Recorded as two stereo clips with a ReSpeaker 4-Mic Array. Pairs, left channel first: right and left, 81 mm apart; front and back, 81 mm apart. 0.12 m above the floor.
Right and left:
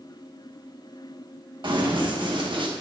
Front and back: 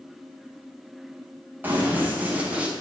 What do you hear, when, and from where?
1.6 s running footsteps: 110° left, 4 m; by 2.7 s 105° left, 2.5 m